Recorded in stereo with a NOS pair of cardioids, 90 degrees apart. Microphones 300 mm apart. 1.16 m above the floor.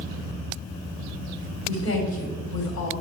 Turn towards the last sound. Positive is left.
turn(degrees=60)